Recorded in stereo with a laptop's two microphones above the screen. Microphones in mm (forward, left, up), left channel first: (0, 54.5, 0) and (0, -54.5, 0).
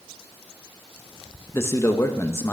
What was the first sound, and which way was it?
A man speaking, 25° left (ahead or behind).